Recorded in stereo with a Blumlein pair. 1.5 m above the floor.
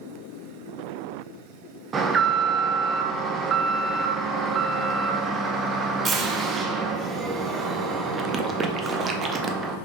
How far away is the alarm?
About 0.5 m.